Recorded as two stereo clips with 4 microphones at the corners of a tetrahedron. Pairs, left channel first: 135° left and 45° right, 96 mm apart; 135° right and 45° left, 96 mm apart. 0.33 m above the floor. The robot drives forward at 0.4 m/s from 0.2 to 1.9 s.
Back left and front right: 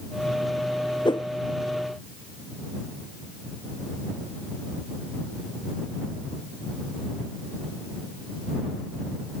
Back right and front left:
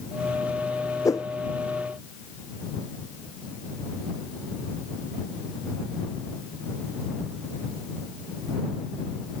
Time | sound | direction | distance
1.1 | a whoosh | 170° left | ?